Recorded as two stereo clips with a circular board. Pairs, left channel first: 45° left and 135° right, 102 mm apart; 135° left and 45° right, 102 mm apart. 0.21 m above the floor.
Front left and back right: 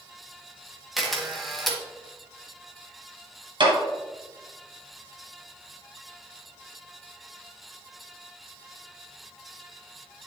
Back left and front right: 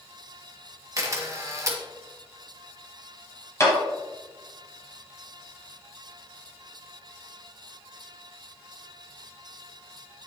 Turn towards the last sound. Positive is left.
turn(degrees=-165)